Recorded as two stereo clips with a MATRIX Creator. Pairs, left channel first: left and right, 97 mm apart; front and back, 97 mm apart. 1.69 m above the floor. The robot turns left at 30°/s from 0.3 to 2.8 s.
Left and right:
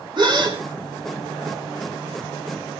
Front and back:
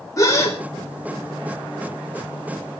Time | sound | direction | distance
0.2 | a gasp | 55° right | 4.5 m